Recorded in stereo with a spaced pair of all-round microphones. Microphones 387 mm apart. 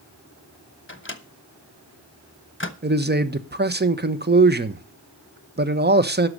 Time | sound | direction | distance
0.9 | a microwave | 30° left (ahead or behind) | 1.0 m
2.8 | a man speaking | 25° right (ahead or behind) | 0.8 m